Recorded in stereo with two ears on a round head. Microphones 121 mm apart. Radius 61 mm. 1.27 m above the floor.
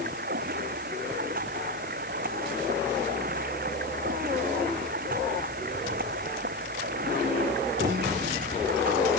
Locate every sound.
0.0 s running water: 65° right (ahead or behind)